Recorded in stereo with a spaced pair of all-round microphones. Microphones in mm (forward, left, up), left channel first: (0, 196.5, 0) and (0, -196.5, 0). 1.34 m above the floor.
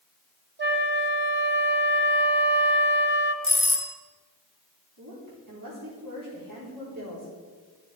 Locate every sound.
0.6 s a flute: 30° right (ahead or behind), 1.3 m
3.4 s a doorbell: 35° left (ahead or behind), 1.3 m
5.0 s a woman speaking: 60° right (ahead or behind), 4 m